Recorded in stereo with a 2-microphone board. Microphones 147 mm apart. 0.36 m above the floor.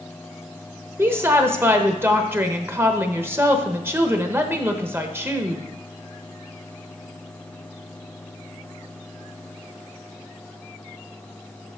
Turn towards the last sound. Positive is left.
turn(degrees=-15)  # may be behind; listen again after turning